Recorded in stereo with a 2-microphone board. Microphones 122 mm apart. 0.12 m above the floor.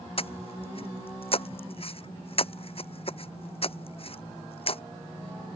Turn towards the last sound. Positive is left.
turn(degrees=50)  # may be behind; listen again after turning